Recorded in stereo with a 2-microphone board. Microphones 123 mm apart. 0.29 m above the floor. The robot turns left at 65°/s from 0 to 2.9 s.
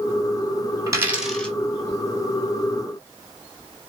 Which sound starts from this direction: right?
A dropped coin, at 0.9 s.